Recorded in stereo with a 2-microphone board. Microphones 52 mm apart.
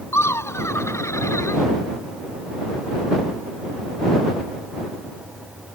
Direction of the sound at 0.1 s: 60° left (ahead or behind).